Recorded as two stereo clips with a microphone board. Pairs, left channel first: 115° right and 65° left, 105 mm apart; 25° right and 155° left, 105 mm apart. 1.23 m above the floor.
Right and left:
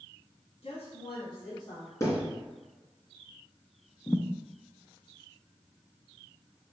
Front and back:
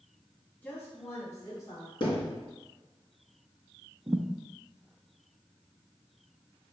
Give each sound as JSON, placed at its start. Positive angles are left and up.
{"t": 0.6, "sound": "a woman speaking", "azimuth_deg": -95, "distance_m": 2.0}
{"t": 2.0, "sound": "a thud", "azimuth_deg": -55, "distance_m": 2.0}
{"t": 4.1, "sound": "a thud", "azimuth_deg": -170, "distance_m": 0.6}